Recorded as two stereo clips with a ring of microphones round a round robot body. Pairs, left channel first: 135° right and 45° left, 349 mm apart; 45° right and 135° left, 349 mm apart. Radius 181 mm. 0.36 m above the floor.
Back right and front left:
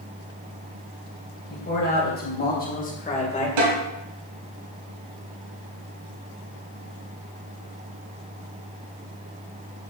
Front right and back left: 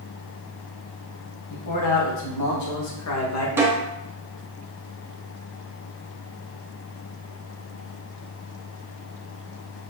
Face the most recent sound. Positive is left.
turn(degrees=50)